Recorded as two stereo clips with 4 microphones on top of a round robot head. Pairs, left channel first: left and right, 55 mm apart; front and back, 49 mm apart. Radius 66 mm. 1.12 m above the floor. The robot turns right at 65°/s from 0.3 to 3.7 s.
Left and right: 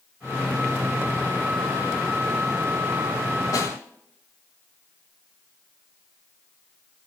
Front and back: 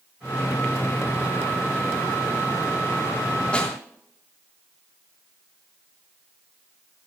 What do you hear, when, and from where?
3.5 s a snare drum: 65° left, 3 m; by 3.8 s 80° left, 3 m